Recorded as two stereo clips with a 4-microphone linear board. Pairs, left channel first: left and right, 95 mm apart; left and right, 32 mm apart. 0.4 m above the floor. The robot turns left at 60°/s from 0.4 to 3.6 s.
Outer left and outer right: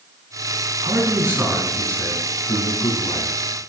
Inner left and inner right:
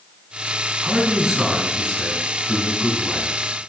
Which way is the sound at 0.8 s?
130° right.